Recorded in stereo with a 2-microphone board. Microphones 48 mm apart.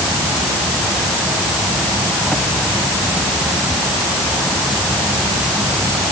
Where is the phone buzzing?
No phone buzzing in this recording.